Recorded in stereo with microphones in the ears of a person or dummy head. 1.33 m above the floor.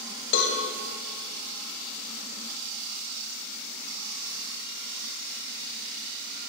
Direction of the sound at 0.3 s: 65° left (ahead or behind).